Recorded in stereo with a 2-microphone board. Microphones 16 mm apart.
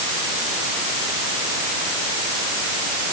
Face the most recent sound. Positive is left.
No sound to turn to.